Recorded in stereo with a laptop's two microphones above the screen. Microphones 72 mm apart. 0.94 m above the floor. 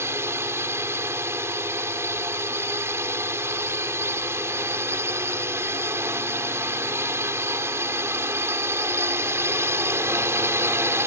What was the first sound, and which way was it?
A drone, 40° right (ahead or behind).